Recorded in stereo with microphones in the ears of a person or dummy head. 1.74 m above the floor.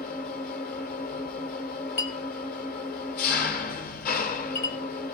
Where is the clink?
35° left (ahead or behind), 1.3 m.